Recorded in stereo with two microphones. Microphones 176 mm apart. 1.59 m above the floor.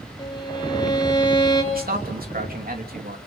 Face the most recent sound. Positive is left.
turn(degrees=-60)  # may be behind; listen again after turning